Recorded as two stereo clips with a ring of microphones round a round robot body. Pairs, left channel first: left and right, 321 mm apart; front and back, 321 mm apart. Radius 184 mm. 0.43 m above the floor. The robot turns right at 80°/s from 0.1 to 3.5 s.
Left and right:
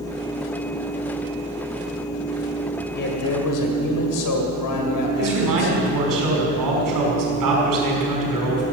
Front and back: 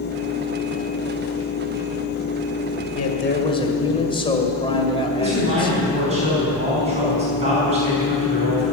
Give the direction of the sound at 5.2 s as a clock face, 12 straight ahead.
4 o'clock.